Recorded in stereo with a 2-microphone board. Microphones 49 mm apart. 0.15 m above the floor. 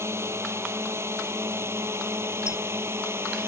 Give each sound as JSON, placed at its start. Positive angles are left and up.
{"t": 0.0, "sound": "a drone", "side_deg": -65}
{"t": 2.5, "sound": "a squeak", "side_deg": -20}